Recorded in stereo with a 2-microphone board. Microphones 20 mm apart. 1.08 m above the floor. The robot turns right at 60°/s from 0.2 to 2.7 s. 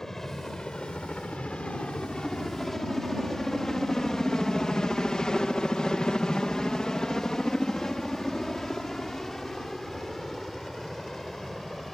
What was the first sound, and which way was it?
A helicopter, 20° left (ahead or behind).